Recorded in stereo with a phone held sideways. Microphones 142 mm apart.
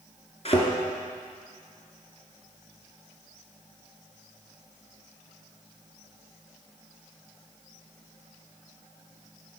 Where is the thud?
50° left (ahead or behind), 2 m.